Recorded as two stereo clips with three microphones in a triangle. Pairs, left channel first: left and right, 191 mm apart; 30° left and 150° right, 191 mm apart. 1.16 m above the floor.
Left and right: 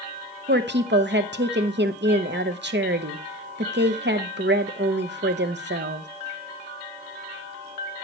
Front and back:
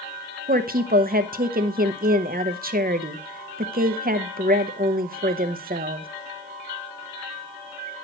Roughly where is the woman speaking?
Right.